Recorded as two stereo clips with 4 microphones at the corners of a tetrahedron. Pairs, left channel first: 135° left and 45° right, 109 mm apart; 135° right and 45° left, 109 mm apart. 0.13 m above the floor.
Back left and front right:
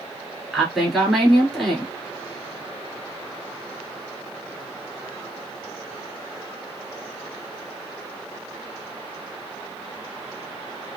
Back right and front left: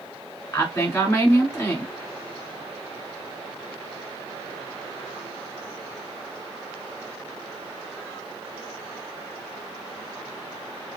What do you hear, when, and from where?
0.5 s a woman speaking: 135° right, 1.6 m